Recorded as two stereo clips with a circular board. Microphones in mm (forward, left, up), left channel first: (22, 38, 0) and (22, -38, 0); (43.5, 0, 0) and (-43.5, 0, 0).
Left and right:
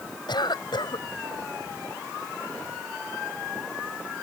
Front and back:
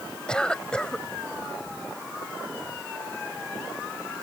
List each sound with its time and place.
0.3 s a cough: 80° left